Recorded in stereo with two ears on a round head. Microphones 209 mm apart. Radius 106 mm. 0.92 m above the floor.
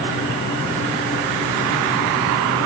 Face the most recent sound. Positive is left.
No sound to turn to.